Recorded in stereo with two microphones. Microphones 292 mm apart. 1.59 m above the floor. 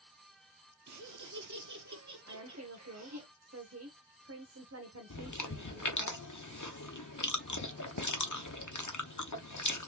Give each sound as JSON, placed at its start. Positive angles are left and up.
{"t": 0.9, "sound": "laughter", "side_deg": -70, "distance_m": 0.5}
{"t": 2.3, "sound": "a woman speaking", "side_deg": -55, "distance_m": 1.1}
{"t": 5.1, "sound": "chewing", "side_deg": 80, "distance_m": 0.8}